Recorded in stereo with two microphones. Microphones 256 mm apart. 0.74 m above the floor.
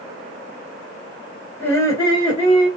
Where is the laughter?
10° left (ahead or behind), 2.5 m; by 2.7 s 25° left (ahead or behind), 2.5 m.